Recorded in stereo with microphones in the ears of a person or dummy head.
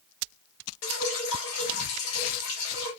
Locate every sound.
0.8 s dripping: 85° left, 1.1 m